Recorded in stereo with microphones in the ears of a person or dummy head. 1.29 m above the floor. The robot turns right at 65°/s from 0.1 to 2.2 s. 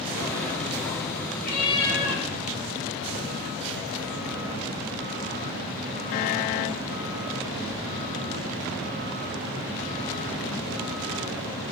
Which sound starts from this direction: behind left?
A cat meowing, at 1.4 s.